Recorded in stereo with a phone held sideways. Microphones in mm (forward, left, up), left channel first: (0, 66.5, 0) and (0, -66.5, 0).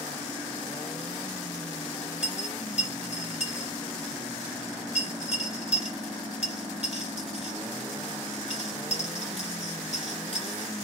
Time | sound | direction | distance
2.2 | a dropped coin | 55° right (ahead or behind) | 2 m